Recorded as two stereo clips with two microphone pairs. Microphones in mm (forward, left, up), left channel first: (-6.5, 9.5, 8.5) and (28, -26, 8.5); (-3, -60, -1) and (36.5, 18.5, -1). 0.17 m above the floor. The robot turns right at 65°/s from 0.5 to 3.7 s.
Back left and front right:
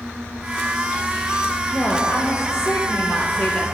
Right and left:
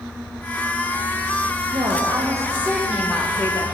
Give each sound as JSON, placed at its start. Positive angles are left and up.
{"t": 1.7, "sound": "a woman speaking", "azimuth_deg": 75, "distance_m": 3.5}